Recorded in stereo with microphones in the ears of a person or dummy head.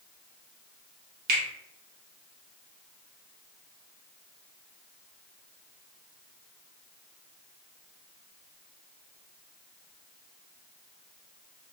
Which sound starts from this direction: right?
A finger snap, at 1.3 s.